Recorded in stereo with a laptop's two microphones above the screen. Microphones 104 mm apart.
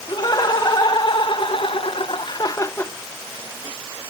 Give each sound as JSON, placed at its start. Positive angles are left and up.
{"t": 0.1, "sound": "laughter", "side_deg": 45, "distance_m": 2.5}